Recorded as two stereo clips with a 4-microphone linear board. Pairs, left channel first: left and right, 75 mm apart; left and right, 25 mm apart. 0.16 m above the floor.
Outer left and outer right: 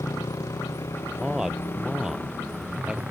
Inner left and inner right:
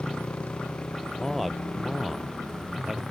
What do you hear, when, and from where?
0.0 s a motorcycle: 60° left (ahead or behind); by 3.1 s 20° right (ahead or behind)
1.2 s a man speaking: 5° right (ahead or behind)